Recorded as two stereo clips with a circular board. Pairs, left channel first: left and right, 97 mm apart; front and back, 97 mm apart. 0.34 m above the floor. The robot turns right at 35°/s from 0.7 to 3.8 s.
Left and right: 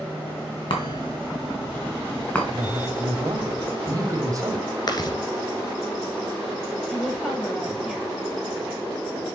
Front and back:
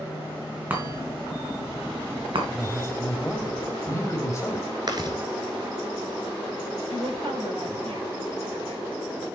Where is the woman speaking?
175° right, 6.5 m.